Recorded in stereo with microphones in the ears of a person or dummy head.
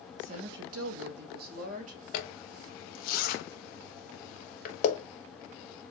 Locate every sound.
0.2 s a woman speaking: 40° right (ahead or behind), 0.6 m
2.1 s a zipper: 60° left (ahead or behind), 0.9 m